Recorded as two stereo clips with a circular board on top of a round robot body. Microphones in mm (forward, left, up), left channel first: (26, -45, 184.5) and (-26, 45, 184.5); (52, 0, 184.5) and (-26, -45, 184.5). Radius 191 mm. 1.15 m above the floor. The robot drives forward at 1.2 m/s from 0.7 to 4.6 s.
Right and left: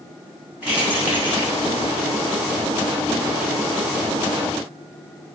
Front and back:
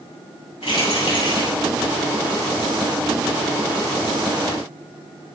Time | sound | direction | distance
0.6 | keys jangling | 45° left | 7.5 m